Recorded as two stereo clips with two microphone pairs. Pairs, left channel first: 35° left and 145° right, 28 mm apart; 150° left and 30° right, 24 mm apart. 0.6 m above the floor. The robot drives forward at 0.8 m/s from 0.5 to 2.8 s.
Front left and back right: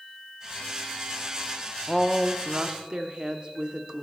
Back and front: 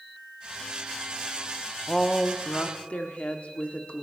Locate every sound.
1.9 s a woman speaking: 110° left, 0.5 m; by 4.0 s 165° left, 1.0 m